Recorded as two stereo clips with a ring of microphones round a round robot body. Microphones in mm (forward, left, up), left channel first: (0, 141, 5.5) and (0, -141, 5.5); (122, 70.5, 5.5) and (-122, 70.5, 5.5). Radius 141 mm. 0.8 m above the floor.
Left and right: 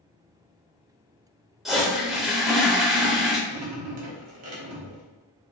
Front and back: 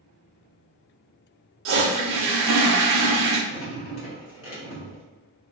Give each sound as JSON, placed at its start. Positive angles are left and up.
{"t": 1.6, "sound": "a toilet flushing", "azimuth_deg": 180, "distance_m": 0.6}
{"t": 3.5, "sound": "dripping", "azimuth_deg": -50, "distance_m": 1.0}